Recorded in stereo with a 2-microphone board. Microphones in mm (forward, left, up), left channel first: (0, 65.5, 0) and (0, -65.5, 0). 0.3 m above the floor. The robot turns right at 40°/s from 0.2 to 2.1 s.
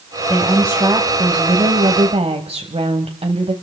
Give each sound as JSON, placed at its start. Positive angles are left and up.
{"t": 0.3, "sound": "a woman speaking", "azimuth_deg": -170, "distance_m": 1.3}